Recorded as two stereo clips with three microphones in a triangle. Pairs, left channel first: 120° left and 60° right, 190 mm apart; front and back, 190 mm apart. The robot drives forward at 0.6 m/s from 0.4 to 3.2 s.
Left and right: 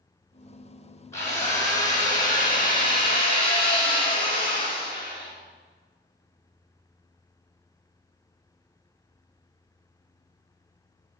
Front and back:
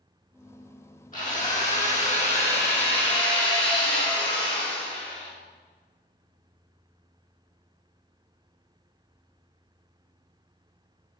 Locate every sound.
1.1 s a drill: 45° left, 4 m; by 5.3 s 60° left, 3 m